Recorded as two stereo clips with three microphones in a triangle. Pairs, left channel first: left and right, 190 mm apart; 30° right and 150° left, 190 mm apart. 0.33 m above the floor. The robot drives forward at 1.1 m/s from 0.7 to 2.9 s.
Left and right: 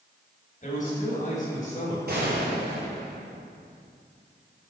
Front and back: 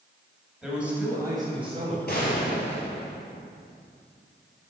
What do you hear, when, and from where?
0.6 s a man speaking: 65° left, 2 m; by 2.0 s 115° left, 2 m
2.1 s a gunshot: 60° right, 2.0 m; by 3.5 s 90° right, 1.7 m